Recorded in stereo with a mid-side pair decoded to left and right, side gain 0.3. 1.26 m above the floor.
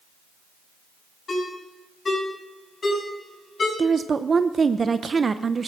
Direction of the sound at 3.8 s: 45° right.